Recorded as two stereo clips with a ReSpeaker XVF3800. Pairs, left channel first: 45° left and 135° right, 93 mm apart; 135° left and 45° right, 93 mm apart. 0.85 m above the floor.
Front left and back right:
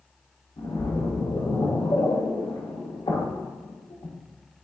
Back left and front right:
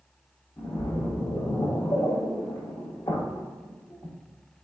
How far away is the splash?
About 1.3 m.